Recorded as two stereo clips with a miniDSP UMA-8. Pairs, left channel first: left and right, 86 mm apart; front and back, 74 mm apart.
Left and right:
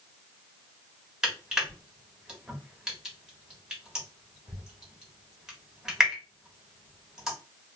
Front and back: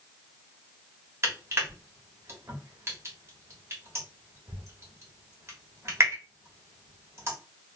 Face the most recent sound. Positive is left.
turn(degrees=-170)